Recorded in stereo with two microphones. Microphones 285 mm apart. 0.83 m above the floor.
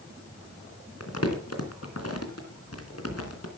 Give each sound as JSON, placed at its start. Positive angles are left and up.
{"t": 1.0, "sound": "crumpling", "side_deg": 60, "distance_m": 3.0}